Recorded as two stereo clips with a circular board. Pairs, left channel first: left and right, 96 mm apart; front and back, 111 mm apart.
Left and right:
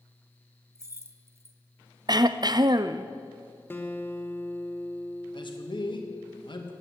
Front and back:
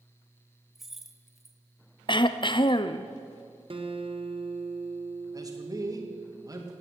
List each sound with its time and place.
0.8 s keys jangling: 95° right, 0.9 m
2.1 s throat clearing: 45° right, 0.5 m
3.7 s a guitar: 155° left, 1.2 m
5.3 s a man speaking: 125° left, 1.9 m